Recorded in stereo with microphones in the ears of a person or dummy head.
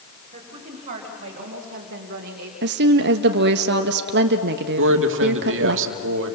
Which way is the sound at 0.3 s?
30° right (ahead or behind).